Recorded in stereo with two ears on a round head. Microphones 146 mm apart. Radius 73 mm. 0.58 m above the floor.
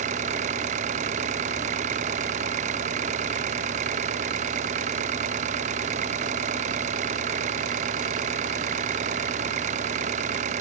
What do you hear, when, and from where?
0.0 s an engine running: 50° right (ahead or behind)